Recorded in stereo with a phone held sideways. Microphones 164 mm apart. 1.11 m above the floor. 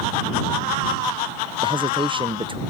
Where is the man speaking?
30° right (ahead or behind).